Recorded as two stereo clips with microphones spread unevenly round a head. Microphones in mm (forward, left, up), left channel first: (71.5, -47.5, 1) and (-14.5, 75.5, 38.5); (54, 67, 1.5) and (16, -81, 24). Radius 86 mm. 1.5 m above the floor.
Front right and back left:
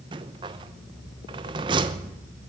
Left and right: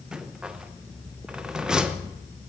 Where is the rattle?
175° left, 0.8 m.